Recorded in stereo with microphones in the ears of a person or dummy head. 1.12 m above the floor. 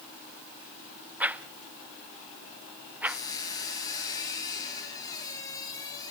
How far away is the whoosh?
About 0.5 m.